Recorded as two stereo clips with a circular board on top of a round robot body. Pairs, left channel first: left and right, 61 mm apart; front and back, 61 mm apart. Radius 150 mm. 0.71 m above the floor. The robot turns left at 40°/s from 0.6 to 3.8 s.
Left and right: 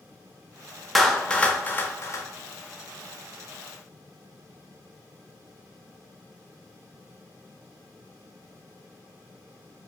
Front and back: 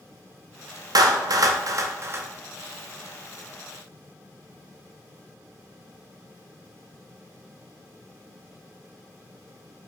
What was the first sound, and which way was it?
A clap, straight behind.